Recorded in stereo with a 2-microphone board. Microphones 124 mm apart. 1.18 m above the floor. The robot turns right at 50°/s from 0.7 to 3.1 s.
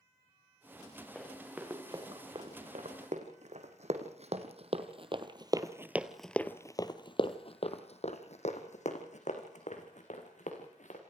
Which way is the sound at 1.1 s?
5° left (ahead or behind).